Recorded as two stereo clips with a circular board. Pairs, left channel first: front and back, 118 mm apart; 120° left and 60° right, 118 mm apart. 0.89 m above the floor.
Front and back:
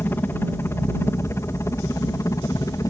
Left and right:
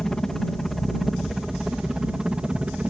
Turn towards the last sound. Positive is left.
turn(degrees=10)